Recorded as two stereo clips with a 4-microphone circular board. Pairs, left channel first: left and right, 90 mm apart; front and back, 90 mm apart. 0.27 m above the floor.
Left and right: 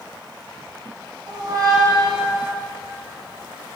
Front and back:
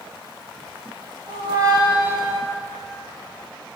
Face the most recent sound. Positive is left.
turn(degrees=-135)